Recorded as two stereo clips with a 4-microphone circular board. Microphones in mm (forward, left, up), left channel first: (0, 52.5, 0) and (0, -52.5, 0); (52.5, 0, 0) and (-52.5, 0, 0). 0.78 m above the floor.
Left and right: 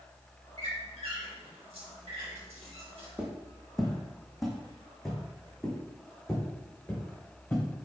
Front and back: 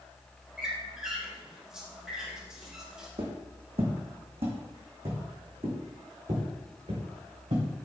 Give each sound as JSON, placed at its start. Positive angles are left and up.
{"t": 0.6, "sound": "a squeak", "azimuth_deg": -95, "distance_m": 2.5}
{"t": 3.2, "sound": "footsteps", "azimuth_deg": -170, "distance_m": 2.0}